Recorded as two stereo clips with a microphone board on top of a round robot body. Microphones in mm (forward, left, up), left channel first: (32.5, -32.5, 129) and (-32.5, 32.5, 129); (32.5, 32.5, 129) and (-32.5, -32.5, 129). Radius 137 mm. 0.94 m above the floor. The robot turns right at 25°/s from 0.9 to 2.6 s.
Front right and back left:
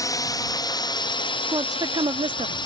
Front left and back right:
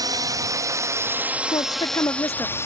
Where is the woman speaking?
85° left; by 2.5 s 110° left.